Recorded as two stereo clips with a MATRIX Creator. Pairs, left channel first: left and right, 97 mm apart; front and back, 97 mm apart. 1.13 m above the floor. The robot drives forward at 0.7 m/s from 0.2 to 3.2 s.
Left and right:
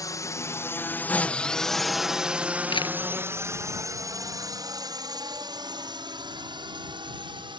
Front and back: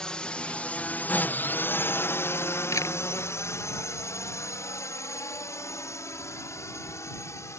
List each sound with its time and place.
0.0 s a drone: 75° left; by 7.6 s 60° right
2.7 s a camera shutter: 60° left